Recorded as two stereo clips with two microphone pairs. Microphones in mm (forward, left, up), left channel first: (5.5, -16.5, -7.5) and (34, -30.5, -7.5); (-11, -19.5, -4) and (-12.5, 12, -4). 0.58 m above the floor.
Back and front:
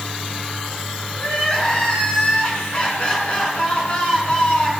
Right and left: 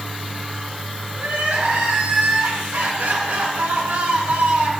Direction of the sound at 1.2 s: 100° left.